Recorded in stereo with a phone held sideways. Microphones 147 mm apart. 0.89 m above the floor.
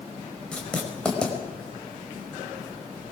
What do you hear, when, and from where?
0.5 s writing: 5° left (ahead or behind), 5 m